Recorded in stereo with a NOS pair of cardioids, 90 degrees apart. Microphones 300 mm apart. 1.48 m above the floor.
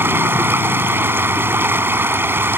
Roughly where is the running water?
Ahead.